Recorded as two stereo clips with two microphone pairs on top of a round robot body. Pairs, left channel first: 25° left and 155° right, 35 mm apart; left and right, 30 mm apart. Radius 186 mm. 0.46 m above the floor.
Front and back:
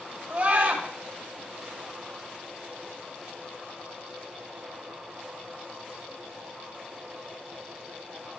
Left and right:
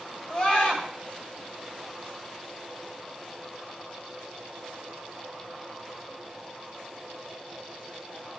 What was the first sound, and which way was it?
A scream, 150° left.